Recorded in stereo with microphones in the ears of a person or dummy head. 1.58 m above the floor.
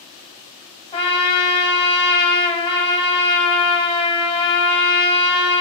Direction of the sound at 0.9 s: 25° left (ahead or behind).